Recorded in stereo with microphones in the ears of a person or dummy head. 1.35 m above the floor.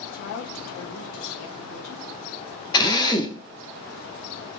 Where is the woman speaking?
70° left (ahead or behind), 1.1 m; by 2.1 s 65° left (ahead or behind), 1.8 m.